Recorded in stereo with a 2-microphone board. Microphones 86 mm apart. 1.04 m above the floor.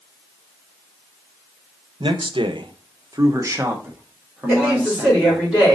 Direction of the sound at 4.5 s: 15° right (ahead or behind).